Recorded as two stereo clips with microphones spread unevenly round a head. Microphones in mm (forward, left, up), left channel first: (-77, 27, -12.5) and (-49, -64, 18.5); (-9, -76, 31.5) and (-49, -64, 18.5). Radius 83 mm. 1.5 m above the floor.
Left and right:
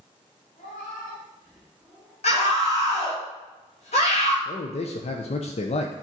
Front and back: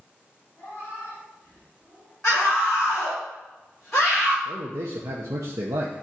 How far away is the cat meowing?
About 4 m.